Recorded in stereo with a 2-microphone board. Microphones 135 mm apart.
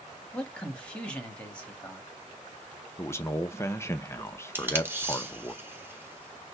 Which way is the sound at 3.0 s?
20° left (ahead or behind).